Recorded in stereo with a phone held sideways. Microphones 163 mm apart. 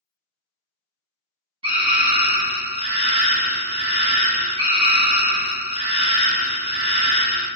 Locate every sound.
1.6 s a scream: 35° right (ahead or behind), 1.1 m